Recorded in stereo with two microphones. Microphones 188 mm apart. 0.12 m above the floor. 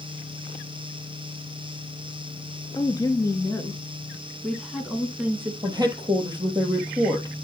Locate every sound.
2.8 s a woman speaking: 20° left (ahead or behind), 1.8 m; by 5.5 s 10° right (ahead or behind), 1.5 m
5.6 s a woman speaking: 20° right (ahead or behind), 3 m